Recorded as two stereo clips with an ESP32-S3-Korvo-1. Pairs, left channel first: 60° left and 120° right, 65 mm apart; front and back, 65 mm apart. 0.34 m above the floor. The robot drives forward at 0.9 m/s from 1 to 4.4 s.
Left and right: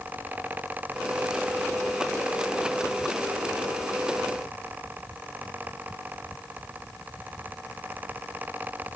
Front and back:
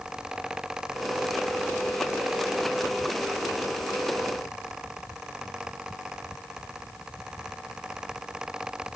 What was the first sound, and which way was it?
Only background noise.